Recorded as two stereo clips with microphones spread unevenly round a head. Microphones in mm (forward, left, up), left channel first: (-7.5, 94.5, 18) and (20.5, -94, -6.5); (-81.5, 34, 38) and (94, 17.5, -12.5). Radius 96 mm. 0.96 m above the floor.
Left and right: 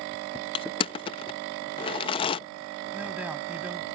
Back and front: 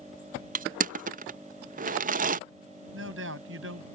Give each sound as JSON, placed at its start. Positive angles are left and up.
{"t": 0.6, "sound": "crushing", "azimuth_deg": 35}
{"t": 2.9, "sound": "a man speaking", "azimuth_deg": 0}